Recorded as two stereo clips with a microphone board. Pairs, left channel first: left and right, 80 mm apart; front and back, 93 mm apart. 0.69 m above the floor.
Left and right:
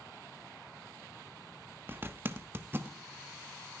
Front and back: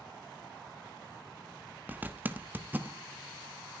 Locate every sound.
1.9 s a zipper: 125° right, 1.1 m